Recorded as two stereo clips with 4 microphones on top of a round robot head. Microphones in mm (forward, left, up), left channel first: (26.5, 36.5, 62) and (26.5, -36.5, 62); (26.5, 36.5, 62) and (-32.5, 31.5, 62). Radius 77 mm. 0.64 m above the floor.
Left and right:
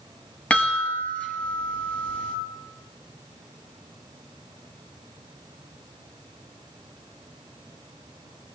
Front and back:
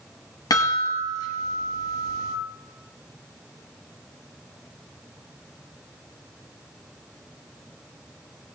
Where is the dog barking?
I don't hear a dog barking.